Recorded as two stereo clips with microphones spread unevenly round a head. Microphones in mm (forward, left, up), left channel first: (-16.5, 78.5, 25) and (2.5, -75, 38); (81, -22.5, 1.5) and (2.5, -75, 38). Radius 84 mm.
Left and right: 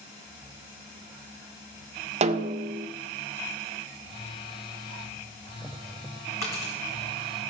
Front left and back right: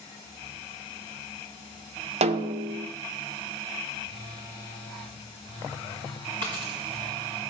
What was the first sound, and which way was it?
A snare drum, 135° right.